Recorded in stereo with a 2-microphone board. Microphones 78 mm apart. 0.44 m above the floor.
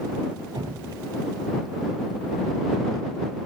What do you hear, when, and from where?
0.6 s dripping: 60° right (ahead or behind)